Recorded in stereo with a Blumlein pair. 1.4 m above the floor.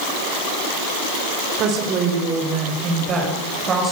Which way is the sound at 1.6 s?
35° right.